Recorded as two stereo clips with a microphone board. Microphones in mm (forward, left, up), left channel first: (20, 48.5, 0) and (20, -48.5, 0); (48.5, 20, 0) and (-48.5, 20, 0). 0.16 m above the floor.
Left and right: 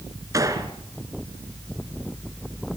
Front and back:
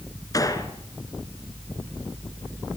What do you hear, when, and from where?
0.3 s a gunshot: 45° right, 2.5 m